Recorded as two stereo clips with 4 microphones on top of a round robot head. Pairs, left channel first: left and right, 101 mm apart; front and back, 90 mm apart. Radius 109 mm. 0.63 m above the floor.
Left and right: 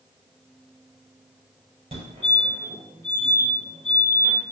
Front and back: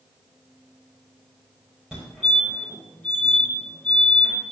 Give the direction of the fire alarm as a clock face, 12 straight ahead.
3 o'clock.